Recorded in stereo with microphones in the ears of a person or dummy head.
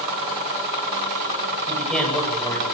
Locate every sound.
1.7 s a man speaking: 5° left (ahead or behind), 9.5 m